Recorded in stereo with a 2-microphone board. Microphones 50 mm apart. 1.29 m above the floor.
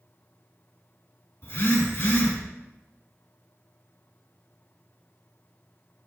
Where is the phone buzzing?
60° left (ahead or behind), 2 m.